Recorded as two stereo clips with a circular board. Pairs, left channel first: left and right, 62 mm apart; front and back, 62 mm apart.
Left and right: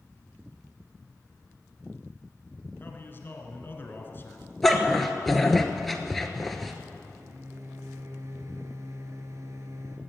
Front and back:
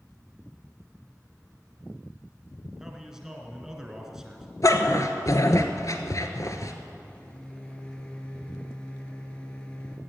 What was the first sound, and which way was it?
A man speaking, 105° left.